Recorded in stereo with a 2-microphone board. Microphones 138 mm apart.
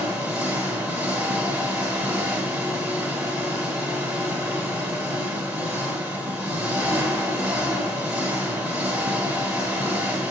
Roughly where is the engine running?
Centre.